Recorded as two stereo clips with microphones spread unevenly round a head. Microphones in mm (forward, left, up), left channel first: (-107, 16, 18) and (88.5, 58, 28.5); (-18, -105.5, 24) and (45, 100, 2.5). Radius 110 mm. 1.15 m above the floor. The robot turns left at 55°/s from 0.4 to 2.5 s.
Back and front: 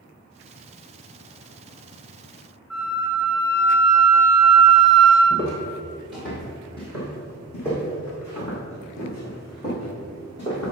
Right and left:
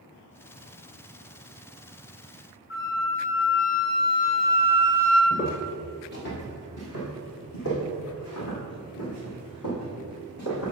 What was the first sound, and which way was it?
A flute, 80° right.